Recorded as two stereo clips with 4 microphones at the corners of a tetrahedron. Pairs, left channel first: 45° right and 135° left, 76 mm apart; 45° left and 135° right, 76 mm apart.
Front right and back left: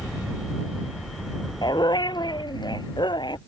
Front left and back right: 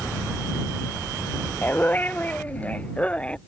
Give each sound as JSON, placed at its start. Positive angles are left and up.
{"t": 1.6, "sound": "a dog barking", "azimuth_deg": -20}